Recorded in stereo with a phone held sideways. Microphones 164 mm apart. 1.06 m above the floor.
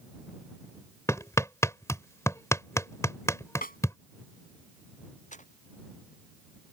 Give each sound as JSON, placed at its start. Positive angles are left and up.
{"t": 1.1, "sound": "hammering", "side_deg": 20}
{"t": 3.6, "sound": "a snare drum", "side_deg": 60}
{"t": 5.3, "sound": "footsteps", "side_deg": 50}